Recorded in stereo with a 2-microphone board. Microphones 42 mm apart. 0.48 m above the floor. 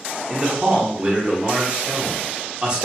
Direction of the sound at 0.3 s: 25° right (ahead or behind).